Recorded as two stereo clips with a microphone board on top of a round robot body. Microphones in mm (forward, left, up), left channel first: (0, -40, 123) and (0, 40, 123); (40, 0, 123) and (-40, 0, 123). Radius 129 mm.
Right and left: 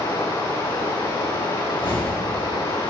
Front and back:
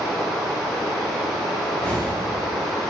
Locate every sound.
0.0 s running water: 85° right, 8 m
1.7 s a whoosh: 75° right, 4.5 m